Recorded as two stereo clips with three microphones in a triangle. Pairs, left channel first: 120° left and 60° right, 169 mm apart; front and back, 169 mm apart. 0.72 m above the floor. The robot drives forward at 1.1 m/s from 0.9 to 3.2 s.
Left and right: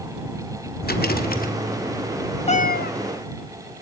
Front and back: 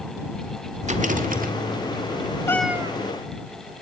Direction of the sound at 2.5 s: 70° left.